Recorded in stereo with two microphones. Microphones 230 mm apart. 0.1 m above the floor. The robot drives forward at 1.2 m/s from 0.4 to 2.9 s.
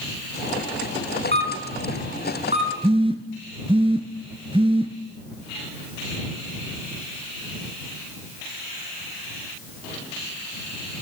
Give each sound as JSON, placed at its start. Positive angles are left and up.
{"t": 1.3, "sound": "a camera shutter", "side_deg": -50, "distance_m": 1.9}
{"t": 2.8, "sound": "a phone buzzing", "side_deg": -25, "distance_m": 1.0}